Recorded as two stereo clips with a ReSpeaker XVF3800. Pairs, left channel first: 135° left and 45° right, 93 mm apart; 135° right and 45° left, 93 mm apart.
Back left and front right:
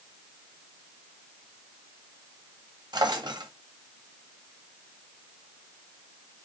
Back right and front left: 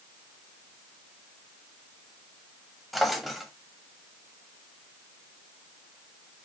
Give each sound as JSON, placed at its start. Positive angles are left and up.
{"t": 2.9, "sound": "a drawer", "azimuth_deg": -45, "distance_m": 1.0}